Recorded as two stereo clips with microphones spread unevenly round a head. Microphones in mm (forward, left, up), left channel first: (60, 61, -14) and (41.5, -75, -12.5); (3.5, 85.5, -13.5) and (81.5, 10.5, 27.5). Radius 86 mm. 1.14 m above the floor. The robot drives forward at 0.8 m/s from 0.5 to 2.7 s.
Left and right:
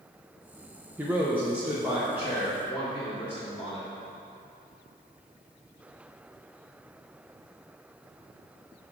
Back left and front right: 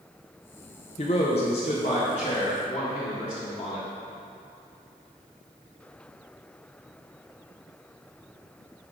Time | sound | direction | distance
1.0 | a man speaking | straight behind | 0.7 m